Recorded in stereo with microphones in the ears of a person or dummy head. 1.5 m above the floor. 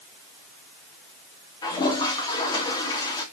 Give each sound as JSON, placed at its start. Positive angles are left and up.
{"t": 1.6, "sound": "a toilet flushing", "side_deg": 25, "distance_m": 2.0}